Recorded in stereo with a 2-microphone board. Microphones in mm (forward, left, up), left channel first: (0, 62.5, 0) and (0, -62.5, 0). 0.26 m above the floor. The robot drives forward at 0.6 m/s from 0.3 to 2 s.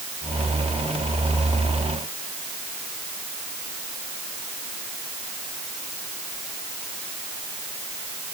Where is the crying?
No crying in this recording.